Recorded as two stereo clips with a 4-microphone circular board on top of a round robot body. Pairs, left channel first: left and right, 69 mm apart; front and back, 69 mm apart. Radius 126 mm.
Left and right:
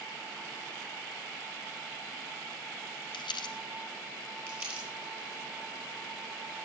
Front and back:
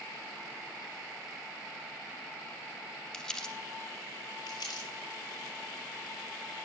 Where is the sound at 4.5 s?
25° right, 8 m.